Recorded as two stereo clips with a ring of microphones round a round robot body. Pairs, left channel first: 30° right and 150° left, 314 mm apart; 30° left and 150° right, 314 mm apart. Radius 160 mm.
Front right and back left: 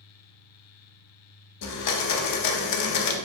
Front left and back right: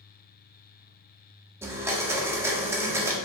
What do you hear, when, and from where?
1.6 s a blender: 70° right, 0.6 m